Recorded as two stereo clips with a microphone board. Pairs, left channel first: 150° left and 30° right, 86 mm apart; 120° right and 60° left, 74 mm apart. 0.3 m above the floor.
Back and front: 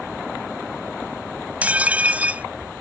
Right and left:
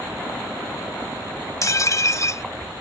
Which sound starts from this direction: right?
Dishes clattering, at 1.6 s.